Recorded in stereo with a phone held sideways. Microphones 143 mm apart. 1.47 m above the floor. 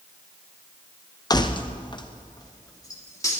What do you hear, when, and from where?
1.3 s keys jangling: 25° left (ahead or behind), 0.6 m; by 3.4 s 20° left (ahead or behind), 2.5 m